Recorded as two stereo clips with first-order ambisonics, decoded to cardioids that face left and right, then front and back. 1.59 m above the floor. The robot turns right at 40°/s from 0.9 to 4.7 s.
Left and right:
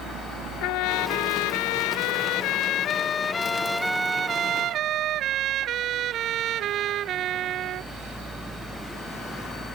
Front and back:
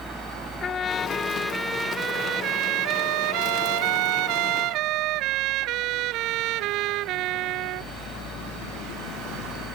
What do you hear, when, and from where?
0.6 s a trumpet: 65° left; by 7.9 s 140° right